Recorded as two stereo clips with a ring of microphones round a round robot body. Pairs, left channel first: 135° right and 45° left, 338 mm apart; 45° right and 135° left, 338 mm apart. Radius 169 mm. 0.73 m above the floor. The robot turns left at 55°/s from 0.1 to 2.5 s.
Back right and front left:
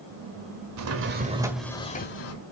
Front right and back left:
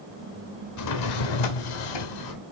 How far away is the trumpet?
I don't hear a trumpet.